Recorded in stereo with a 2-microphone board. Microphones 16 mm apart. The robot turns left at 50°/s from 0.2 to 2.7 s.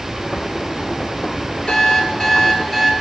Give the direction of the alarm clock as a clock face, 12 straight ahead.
10 o'clock.